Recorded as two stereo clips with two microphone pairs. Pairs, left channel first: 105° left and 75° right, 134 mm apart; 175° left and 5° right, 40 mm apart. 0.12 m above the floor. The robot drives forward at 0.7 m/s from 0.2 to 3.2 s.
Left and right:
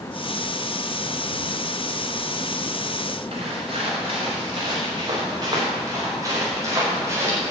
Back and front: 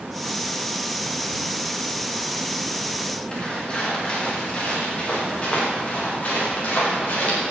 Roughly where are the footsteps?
Behind right.